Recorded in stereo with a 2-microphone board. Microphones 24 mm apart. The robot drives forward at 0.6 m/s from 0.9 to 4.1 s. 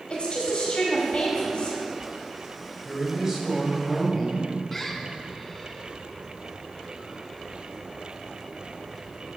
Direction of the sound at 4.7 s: 10° left (ahead or behind).